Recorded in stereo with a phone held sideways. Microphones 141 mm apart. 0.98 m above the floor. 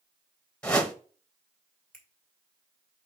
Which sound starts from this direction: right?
A finger snap, at 1.9 s.